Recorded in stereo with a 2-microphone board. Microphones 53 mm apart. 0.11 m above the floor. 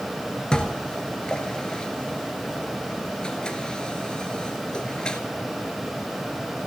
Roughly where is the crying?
I don't hear crying.